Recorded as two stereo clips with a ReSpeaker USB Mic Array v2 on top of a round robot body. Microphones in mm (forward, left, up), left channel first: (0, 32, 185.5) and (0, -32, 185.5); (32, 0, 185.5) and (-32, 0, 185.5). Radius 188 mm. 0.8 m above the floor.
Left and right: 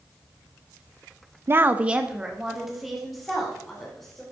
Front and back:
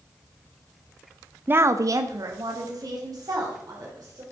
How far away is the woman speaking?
About 0.7 m.